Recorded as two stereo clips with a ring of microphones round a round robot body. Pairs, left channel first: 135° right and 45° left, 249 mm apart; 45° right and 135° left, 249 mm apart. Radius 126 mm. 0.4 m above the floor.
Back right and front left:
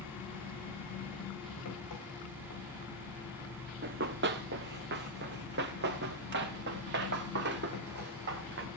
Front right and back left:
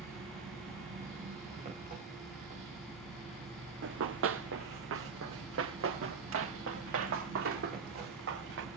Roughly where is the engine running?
Behind.